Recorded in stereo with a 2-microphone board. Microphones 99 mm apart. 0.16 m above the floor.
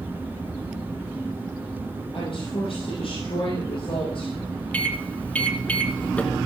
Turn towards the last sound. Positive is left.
turn(degrees=15)  # may be behind; listen again after turning